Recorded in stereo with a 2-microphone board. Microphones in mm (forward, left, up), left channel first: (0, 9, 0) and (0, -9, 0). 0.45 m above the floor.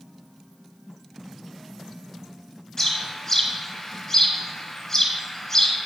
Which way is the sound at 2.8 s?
30° left (ahead or behind).